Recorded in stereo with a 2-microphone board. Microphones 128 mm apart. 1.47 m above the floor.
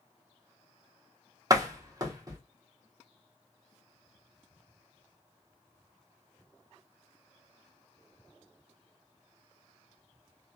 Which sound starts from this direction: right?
A door slam, at 1.5 s.